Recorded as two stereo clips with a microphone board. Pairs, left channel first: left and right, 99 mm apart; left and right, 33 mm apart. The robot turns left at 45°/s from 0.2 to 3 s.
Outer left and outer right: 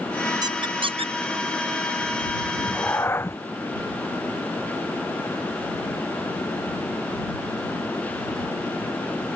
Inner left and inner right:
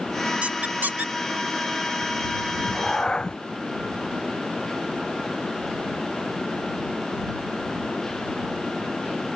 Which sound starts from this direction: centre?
A cat meowing, at 2.5 s.